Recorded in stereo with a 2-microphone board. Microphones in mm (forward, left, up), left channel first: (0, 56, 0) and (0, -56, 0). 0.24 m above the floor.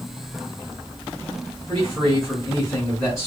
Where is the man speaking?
Centre (ahead or behind), 2.5 m.